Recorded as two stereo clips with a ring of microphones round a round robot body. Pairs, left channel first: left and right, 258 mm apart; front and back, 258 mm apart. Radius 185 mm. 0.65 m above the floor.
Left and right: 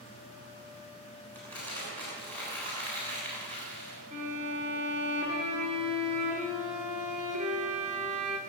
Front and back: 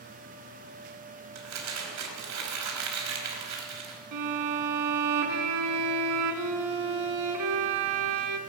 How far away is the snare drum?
No snare drum in this recording.